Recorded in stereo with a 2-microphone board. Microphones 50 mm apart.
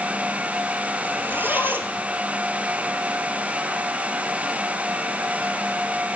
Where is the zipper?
40° right (ahead or behind), 1.5 m.